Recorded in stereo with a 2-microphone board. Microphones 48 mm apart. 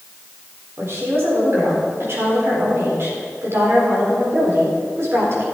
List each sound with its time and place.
0.8 s a woman speaking: 60° right (ahead or behind), 4 m